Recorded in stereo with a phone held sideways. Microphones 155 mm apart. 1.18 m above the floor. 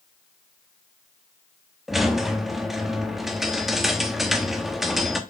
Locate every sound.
1.9 s a squeak: centre (ahead or behind), 0.6 m